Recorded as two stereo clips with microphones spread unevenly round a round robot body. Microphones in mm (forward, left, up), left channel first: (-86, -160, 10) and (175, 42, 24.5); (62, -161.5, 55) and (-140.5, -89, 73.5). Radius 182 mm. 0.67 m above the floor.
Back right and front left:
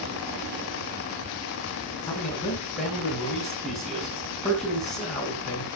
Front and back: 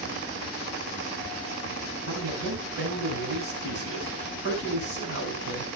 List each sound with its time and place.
2.1 s a man speaking: 145° left, 5.5 m